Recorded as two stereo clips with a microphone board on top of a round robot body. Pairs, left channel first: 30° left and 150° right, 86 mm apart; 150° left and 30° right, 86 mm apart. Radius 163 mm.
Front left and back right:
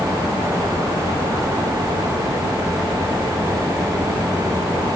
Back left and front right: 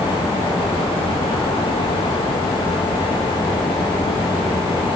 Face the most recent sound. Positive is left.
No sound to turn to.